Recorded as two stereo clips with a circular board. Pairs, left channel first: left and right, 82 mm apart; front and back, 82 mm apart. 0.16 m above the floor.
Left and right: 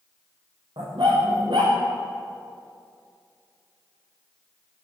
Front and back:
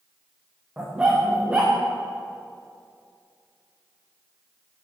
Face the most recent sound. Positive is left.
turn(degrees=-105)